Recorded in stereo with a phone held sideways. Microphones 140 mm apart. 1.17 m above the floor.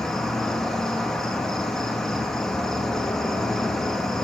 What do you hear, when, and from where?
0.0 s an insect: 5° left (ahead or behind), 0.8 m